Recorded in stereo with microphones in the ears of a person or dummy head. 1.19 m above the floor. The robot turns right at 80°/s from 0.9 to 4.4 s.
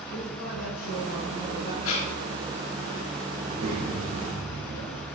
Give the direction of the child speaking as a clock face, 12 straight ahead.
4 o'clock.